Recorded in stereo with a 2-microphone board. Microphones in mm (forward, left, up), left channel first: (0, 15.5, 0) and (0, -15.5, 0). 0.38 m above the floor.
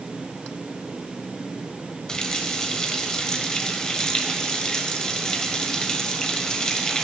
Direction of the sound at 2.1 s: 20° left (ahead or behind).